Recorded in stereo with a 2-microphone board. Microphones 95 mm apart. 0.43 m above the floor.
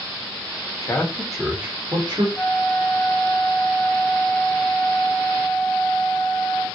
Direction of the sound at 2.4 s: 15° left (ahead or behind).